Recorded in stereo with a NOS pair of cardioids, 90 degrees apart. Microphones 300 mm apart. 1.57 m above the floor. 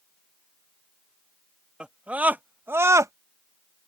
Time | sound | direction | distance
1.8 | a scream | 5° right | ?